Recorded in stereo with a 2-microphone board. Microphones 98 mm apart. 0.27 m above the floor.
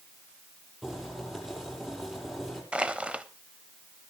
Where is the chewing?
I don't hear chewing.